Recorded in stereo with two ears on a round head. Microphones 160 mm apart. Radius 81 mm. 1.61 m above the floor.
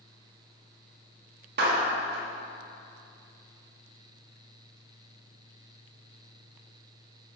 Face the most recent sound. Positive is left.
turn(degrees=-60)  # may be behind; listen again after turning